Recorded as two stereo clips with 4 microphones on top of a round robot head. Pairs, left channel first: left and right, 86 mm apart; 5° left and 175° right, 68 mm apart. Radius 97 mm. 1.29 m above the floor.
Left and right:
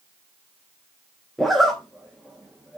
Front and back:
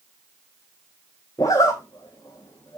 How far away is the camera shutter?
No camera shutter in this recording.